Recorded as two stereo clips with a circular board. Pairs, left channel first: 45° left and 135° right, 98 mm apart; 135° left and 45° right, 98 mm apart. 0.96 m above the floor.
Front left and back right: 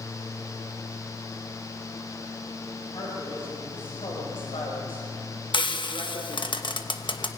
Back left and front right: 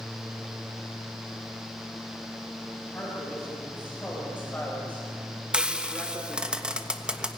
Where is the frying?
35° left, 1.3 m.